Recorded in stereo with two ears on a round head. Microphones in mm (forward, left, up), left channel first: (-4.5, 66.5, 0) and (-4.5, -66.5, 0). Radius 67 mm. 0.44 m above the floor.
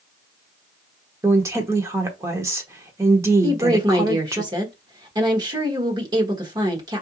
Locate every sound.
1.2 s a woman speaking: 20° right (ahead or behind), 1.0 m
3.4 s a woman speaking: 25° right (ahead or behind), 1.2 m